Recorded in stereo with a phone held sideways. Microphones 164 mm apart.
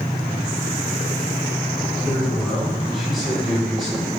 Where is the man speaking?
5° right (ahead or behind), 1.5 m; by 4.1 s centre (ahead or behind), 3.5 m.